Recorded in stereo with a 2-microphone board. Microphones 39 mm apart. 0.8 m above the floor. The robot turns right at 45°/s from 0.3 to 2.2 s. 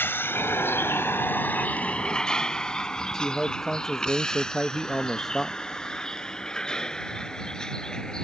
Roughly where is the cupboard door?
I don't hear a cupboard door.